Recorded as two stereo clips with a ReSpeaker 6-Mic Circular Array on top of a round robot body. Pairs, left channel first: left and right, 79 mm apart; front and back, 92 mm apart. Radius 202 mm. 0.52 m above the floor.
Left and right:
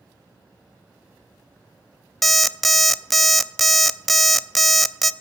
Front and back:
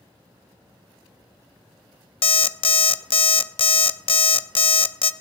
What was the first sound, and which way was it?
An alarm clock, straight ahead.